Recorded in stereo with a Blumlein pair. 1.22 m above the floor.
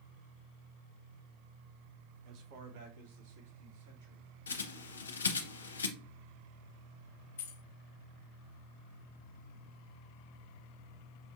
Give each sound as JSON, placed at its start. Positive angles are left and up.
{"t": 2.2, "sound": "a man speaking", "azimuth_deg": -35, "distance_m": 0.7}
{"t": 4.5, "sound": "a bird", "azimuth_deg": 70, "distance_m": 0.6}
{"t": 7.4, "sound": "keys jangling", "azimuth_deg": 55, "distance_m": 0.6}